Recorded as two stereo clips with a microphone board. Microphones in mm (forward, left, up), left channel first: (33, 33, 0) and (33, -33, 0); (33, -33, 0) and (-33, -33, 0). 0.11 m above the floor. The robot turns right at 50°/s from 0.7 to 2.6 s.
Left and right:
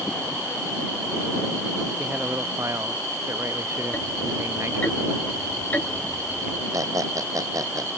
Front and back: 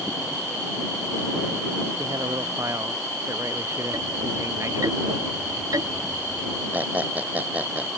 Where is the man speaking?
165° right; by 4.9 s 135° right.